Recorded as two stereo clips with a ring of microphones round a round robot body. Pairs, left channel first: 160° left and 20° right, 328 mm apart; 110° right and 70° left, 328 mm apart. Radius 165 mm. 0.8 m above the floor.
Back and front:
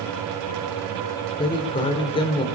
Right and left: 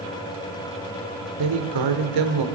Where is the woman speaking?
85° left, 3 m.